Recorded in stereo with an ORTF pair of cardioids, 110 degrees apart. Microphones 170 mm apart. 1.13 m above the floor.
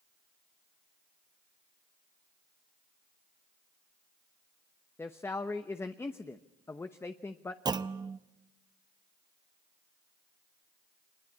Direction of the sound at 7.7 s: 25° right.